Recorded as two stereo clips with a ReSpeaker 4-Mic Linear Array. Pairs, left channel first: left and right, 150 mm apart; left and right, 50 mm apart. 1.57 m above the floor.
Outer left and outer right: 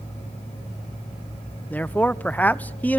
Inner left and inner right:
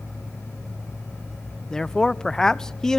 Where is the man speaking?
10° left (ahead or behind), 0.9 m.